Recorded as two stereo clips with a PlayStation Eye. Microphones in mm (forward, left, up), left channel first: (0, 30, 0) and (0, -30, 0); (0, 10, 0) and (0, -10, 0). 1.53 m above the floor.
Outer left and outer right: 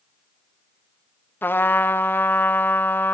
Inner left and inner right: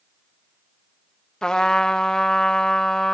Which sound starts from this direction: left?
A trumpet, at 1.4 s.